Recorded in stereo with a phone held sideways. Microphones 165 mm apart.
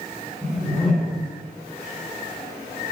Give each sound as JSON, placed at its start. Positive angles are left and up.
{"t": 0.4, "sound": "a whoosh", "side_deg": 5, "distance_m": 1.7}